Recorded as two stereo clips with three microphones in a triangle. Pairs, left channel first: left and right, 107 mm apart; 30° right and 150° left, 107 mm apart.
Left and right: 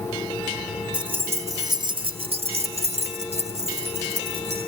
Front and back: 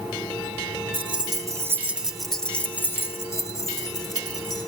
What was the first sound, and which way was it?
Keys jangling, 170° right.